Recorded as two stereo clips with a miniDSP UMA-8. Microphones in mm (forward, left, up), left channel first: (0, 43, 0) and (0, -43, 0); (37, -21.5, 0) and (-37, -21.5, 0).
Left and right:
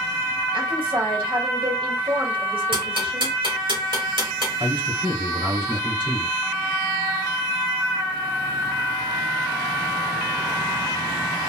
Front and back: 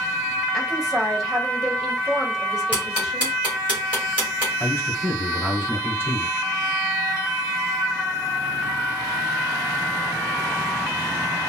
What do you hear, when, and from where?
0.5 s a woman speaking: 95° right, 1.6 m
2.7 s ticking: 105° right, 2.5 m
4.6 s a man speaking: 120° right, 1.8 m